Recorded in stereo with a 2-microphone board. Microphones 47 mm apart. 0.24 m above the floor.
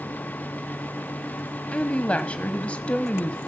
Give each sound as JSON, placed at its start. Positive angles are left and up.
{"t": 1.7, "sound": "a woman speaking", "side_deg": 25, "distance_m": 1.2}